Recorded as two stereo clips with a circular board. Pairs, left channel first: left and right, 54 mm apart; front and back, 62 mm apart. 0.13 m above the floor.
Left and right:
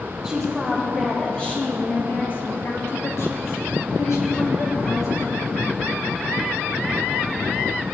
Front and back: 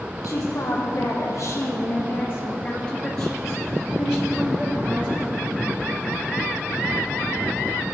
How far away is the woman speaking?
About 3.5 m.